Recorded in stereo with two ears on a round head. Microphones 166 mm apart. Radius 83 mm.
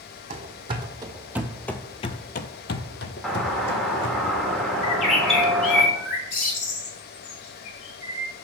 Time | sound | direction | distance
0.3 | running footsteps | 35° right (ahead or behind) | 1.1 m
3.2 | a doorbell | centre (ahead or behind) | 1.3 m
4.8 | a bird | 45° left (ahead or behind) | 2 m